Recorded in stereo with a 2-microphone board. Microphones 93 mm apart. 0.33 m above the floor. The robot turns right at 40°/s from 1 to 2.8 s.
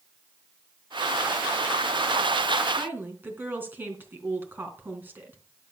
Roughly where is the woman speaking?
Right.